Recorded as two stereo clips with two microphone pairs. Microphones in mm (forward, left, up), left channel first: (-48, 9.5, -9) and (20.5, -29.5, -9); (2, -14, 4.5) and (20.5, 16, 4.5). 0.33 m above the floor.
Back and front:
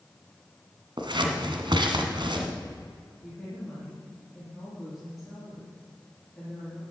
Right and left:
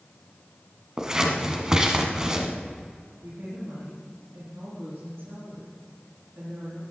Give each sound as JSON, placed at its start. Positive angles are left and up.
{"t": 1.0, "sound": "scissors", "azimuth_deg": -10, "distance_m": 1.5}
{"t": 3.2, "sound": "a woman speaking", "azimuth_deg": 60, "distance_m": 5.0}